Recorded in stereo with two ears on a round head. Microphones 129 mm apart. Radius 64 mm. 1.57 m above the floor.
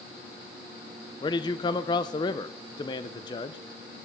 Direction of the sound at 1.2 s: 30° left (ahead or behind).